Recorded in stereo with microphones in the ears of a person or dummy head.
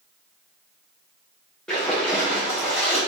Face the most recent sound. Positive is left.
turn(degrees=5)  # may be behind; listen again after turning